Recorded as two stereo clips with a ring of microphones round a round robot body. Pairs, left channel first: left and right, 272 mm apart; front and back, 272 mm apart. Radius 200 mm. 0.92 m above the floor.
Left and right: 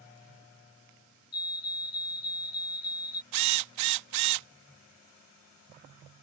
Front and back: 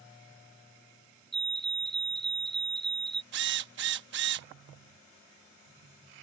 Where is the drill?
120° right.